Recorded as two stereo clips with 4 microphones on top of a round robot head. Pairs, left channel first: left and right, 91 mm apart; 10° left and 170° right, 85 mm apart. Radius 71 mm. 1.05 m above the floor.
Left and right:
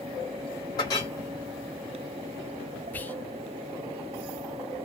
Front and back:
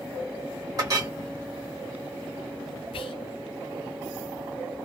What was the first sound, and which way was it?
A clink, 150° left.